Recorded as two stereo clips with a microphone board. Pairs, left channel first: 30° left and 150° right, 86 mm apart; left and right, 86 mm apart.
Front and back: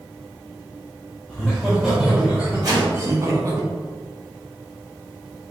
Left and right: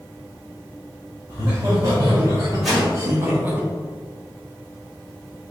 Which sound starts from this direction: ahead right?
Laughter, at 1.3 s.